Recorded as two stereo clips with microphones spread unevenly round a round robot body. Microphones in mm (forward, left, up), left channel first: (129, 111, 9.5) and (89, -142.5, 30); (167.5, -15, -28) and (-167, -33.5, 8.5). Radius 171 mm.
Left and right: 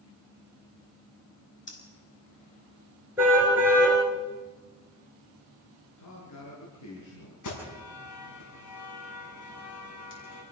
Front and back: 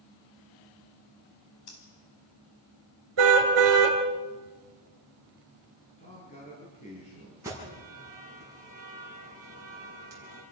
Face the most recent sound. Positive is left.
turn(degrees=100)